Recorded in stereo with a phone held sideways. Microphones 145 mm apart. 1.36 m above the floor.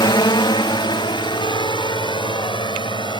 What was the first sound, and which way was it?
A drone, 30° left (ahead or behind).